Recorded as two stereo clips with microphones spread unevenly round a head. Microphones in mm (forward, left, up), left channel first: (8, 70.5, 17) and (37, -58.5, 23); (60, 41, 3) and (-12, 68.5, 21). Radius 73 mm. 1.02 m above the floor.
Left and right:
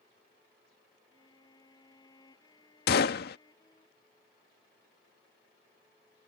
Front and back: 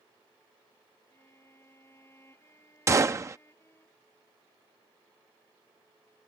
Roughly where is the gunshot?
Left.